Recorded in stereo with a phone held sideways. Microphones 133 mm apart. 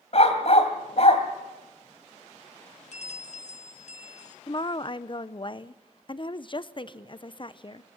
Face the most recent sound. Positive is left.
turn(degrees=40)  # may be behind; listen again after turning